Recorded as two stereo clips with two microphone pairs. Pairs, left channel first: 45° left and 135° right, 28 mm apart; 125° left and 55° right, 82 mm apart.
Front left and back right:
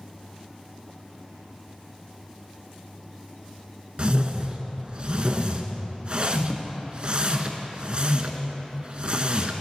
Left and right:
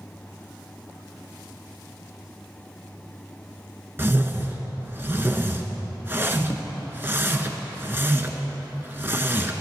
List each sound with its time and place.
4.0 s a whoosh: 110° right, 0.7 m